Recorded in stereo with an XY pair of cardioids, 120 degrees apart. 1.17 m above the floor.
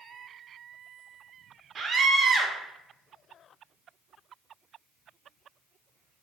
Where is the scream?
45° right, 0.8 m.